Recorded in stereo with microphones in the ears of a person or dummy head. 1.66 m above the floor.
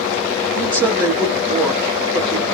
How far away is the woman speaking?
About 1.5 m.